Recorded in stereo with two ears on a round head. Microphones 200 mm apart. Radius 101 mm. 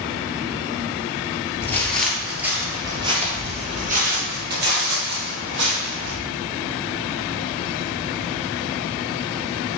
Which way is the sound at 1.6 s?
10° left (ahead or behind).